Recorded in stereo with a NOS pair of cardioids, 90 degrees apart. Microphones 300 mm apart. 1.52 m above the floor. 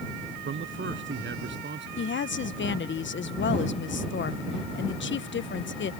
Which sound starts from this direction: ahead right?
A man speaking, at 0.5 s.